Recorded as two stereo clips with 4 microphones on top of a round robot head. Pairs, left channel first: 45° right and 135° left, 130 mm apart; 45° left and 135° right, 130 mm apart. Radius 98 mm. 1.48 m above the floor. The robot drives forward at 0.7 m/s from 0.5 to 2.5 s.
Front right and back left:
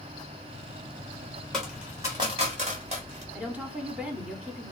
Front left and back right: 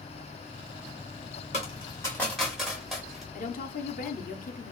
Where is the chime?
I don't hear a chime.